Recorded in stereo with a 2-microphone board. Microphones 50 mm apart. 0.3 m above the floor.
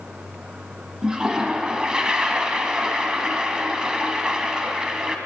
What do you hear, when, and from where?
1.0 s a toilet flushing: 15° right (ahead or behind), 2 m